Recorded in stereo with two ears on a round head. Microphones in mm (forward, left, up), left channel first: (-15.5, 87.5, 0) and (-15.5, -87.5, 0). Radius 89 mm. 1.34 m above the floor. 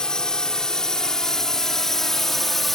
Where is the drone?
5° left (ahead or behind); by 2.8 s centre (ahead or behind).